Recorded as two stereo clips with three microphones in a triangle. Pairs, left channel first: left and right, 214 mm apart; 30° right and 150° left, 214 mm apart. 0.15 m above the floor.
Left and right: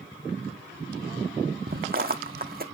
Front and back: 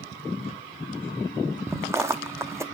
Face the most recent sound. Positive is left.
turn(degrees=-130)